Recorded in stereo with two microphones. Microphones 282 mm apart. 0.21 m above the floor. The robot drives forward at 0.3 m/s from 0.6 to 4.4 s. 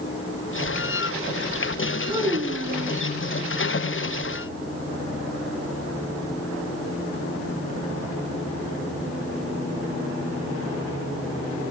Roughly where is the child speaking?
Centre.